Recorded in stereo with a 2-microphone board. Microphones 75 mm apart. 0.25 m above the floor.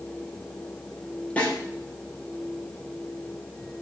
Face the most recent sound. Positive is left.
turn(degrees=15)  # may be behind; listen again after turning